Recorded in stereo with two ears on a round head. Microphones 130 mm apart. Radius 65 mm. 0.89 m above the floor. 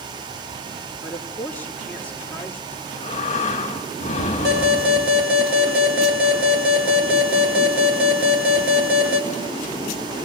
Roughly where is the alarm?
Right.